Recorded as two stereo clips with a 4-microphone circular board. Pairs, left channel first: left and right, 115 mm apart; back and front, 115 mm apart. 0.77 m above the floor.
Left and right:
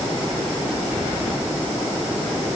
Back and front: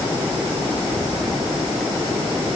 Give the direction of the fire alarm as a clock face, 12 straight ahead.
No fire alarm in this recording.